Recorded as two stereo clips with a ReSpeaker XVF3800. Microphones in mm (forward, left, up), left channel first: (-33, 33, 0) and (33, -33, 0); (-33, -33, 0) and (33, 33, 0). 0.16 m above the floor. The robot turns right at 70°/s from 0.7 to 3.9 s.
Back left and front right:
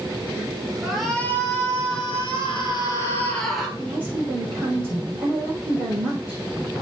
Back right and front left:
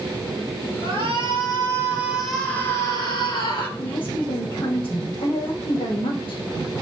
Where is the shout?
35° left, 3.5 m; by 3.7 s 125° right, 3.5 m.